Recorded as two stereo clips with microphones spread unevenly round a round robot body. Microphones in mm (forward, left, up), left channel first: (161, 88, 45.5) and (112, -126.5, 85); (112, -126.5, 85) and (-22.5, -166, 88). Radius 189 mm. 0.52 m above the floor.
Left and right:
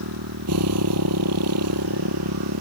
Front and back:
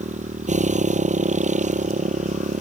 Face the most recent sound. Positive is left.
turn(degrees=-130)